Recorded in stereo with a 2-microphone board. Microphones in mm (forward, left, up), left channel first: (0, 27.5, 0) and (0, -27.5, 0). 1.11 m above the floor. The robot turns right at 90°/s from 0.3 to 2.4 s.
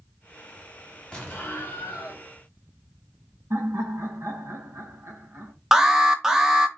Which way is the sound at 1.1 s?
15° left.